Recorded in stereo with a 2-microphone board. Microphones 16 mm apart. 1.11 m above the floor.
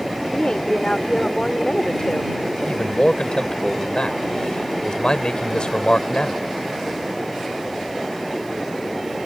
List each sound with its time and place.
0.3 s a woman speaking: 75° left (ahead or behind)
2.5 s a man speaking: 65° left (ahead or behind)